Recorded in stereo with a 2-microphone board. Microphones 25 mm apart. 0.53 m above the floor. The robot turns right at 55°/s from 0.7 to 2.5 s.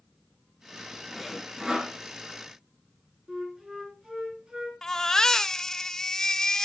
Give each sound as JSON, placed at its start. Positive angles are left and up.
{"t": 1.1, "sound": "sawing", "azimuth_deg": 180, "distance_m": 2.5}
{"t": 3.3, "sound": "a flute", "side_deg": -30, "distance_m": 4.0}
{"t": 4.8, "sound": "a baby crying", "side_deg": 20, "distance_m": 0.7}